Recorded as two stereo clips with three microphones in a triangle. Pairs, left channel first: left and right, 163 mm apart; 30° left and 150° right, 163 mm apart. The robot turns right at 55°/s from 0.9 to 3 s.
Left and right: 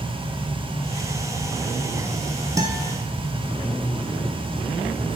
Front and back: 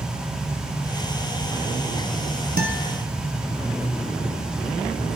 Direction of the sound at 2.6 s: 160° right.